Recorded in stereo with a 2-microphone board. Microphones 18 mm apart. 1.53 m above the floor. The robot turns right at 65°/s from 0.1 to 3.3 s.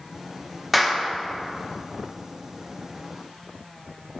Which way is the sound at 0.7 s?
5° right (ahead or behind).